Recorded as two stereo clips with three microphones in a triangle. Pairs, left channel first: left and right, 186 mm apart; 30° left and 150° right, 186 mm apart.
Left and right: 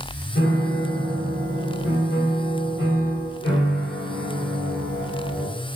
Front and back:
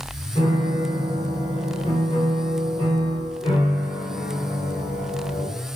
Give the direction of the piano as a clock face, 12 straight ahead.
9 o'clock.